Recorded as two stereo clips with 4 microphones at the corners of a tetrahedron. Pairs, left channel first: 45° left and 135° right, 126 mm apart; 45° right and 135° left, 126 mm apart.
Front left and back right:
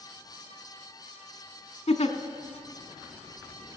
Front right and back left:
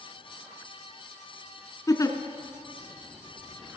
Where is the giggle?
15° left, 0.8 m.